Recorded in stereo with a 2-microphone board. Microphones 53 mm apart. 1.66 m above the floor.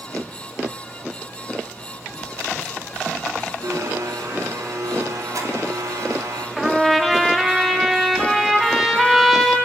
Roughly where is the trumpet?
Centre.